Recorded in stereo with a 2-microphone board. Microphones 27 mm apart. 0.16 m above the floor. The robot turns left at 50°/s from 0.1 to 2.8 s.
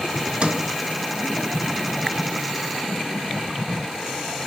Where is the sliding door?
40° right (ahead or behind), 0.5 m; by 0.7 s 30° right (ahead or behind), 0.5 m.